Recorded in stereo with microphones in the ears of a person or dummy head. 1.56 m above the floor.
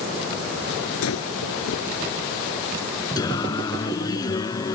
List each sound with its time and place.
1.0 s breathing: 85° left
3.2 s singing: 25° left (ahead or behind)